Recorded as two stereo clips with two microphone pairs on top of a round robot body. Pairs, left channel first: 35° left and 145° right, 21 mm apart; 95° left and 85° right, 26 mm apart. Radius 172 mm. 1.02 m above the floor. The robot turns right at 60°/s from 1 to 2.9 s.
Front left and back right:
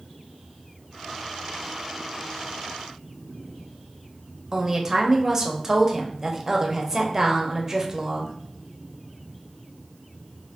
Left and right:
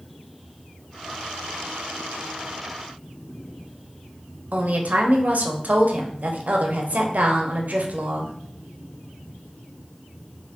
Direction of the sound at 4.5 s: 75° right.